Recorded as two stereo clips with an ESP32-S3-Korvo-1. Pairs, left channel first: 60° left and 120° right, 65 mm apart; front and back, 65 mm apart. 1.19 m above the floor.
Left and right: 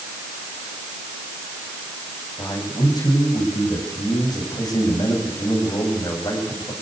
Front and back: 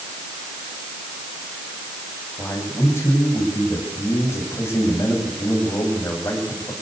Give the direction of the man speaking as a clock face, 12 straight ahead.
10 o'clock.